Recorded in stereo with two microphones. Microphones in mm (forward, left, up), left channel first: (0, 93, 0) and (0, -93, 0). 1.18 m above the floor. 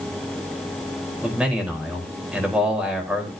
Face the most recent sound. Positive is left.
turn(degrees=-5)  # may be behind; listen again after turning